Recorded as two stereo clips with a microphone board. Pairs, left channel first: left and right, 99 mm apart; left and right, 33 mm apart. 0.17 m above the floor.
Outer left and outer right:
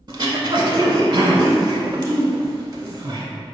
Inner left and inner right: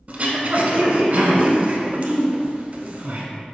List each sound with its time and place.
0.1 s throat clearing: 45° right (ahead or behind), 0.6 m